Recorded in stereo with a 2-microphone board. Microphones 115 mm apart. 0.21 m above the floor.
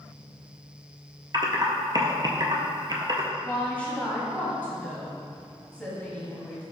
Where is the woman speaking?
10° left (ahead or behind), 1.1 m.